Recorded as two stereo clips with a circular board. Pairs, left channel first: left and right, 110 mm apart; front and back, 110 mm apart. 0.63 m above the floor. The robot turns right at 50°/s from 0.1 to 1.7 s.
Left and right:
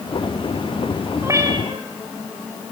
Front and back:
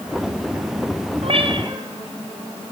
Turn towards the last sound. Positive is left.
turn(degrees=-130)